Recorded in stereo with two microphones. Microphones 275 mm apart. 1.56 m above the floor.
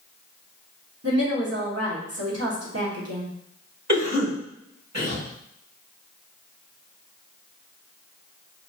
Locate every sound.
1.0 s a woman speaking: 60° right (ahead or behind), 1.1 m
3.9 s a cough: 75° right (ahead or behind), 1.5 m